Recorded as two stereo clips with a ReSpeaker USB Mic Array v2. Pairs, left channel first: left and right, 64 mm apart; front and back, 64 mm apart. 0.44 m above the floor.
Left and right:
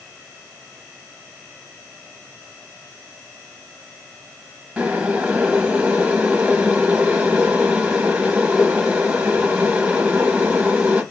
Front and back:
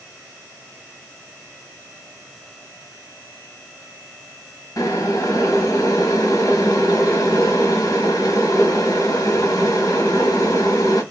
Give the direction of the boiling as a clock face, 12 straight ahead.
1 o'clock.